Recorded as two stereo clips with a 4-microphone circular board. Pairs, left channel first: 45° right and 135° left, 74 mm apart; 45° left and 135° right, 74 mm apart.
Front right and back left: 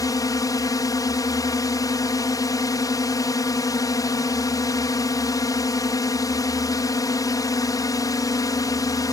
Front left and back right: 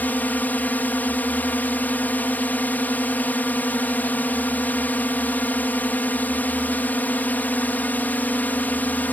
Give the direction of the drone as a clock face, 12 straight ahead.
1 o'clock.